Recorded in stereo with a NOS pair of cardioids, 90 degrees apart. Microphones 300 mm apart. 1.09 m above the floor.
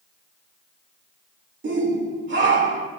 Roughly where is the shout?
Ahead right.